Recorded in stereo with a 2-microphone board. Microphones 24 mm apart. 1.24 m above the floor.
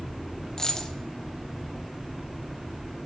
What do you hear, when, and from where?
0.6 s a dropped coin: 20° left (ahead or behind), 1.0 m